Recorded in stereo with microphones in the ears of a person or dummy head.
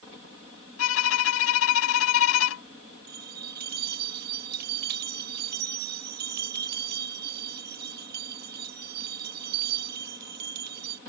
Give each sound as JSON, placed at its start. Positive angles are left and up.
{"t": 0.8, "sound": "a violin", "side_deg": 90}
{"t": 3.1, "sound": "a bell", "side_deg": -55}